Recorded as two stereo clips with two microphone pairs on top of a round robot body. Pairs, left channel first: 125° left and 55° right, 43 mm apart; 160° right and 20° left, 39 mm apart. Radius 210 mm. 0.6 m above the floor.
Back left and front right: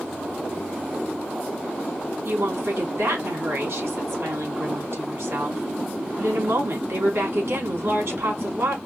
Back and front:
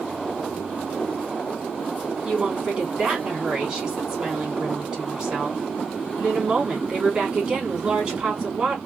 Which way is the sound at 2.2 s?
45° right.